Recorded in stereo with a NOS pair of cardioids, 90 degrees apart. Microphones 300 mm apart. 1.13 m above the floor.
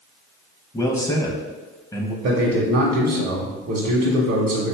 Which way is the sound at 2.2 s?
55° right.